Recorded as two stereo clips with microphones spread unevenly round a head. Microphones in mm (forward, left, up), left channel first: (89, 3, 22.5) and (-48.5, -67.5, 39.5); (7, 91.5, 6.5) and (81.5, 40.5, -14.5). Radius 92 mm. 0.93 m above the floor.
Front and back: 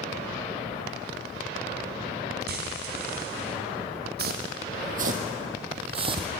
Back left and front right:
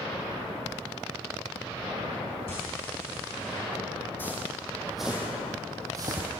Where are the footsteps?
145° right, 2.5 m; by 6.3 s 100° right, 2 m.